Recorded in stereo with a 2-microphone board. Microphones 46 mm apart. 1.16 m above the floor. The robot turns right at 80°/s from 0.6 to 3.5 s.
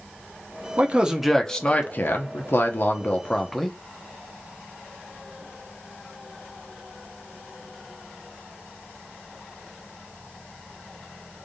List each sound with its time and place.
0.8 s a man speaking: 45° right, 0.8 m; by 3.8 s 175° left, 0.8 m